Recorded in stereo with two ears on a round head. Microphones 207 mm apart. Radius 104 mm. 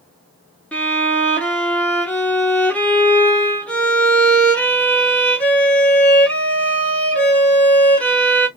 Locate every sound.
0.7 s a violin: 5° left (ahead or behind), 1.6 m